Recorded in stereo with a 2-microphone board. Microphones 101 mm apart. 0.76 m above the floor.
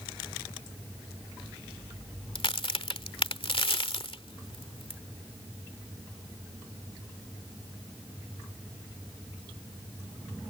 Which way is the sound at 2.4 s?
60° left (ahead or behind).